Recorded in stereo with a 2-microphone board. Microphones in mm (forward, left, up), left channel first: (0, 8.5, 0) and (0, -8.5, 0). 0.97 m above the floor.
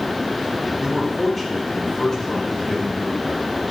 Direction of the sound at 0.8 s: 5° left (ahead or behind).